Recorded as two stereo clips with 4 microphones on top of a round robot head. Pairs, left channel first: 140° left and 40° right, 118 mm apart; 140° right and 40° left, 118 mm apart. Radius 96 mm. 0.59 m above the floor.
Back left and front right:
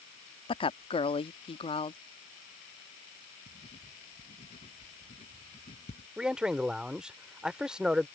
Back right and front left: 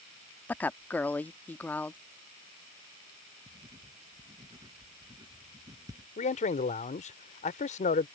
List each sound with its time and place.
0.5 s a woman speaking: 150° left
3.5 s writing: 100° left
6.2 s a man speaking: 125° right